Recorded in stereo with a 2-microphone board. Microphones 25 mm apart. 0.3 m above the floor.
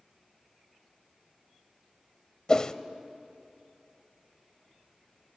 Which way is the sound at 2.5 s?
30° left (ahead or behind).